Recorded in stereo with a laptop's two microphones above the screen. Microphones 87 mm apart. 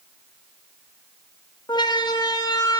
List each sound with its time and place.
1.7 s a siren: 60° left (ahead or behind), 2 m; by 2.8 s 45° left (ahead or behind), 2.5 m